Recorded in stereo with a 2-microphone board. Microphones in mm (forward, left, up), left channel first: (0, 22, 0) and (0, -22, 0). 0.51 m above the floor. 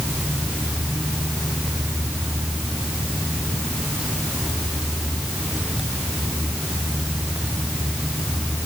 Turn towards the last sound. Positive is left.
No sound to turn to.